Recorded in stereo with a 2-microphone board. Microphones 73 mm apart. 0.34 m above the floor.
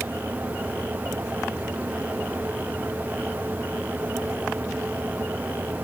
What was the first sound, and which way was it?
Only background noise.